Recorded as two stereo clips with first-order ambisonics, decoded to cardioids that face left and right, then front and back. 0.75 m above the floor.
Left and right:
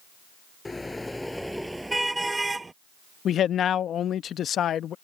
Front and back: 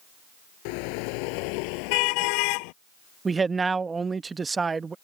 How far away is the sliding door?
I don't hear a sliding door.